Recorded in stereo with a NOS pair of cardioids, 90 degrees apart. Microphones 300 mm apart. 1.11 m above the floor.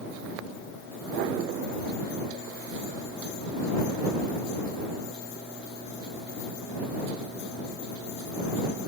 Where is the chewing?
No chewing in this recording.